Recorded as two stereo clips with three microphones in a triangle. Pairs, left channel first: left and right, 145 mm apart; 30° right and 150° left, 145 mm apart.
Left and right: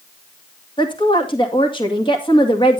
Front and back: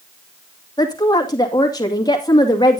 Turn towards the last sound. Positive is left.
turn(degrees=35)